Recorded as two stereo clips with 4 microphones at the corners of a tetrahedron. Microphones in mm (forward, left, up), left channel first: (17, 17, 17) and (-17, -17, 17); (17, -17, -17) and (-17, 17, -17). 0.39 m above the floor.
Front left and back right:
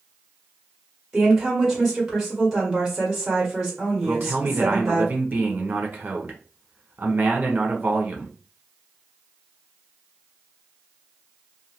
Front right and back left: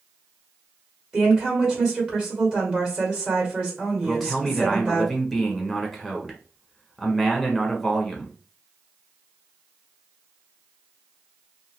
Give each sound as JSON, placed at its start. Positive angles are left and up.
{"t": 1.1, "sound": "a woman speaking", "azimuth_deg": 150, "distance_m": 1.5}
{"t": 4.0, "sound": "a man speaking", "azimuth_deg": -135, "distance_m": 0.9}